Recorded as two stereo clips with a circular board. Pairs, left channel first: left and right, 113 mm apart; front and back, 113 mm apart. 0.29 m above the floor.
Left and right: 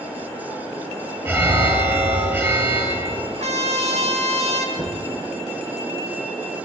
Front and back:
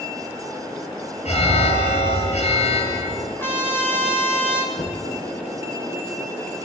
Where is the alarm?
25° right, 8 m.